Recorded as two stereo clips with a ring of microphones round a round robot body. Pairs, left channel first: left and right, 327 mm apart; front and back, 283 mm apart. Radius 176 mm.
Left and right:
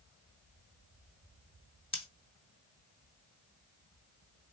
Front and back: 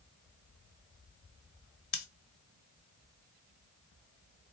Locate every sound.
1.9 s scissors: 20° left, 1.4 m